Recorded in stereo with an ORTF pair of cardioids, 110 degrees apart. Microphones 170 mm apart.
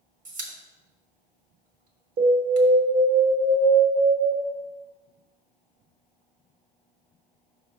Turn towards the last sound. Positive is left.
turn(degrees=-65)